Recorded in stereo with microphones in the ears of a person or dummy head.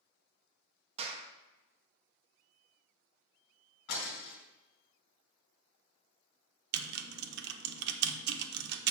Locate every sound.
1.0 s a clap: 35° right (ahead or behind), 1.2 m
3.9 s breaking glass: 65° left (ahead or behind), 3 m
6.7 s typing on a keyboard: 60° right (ahead or behind), 0.8 m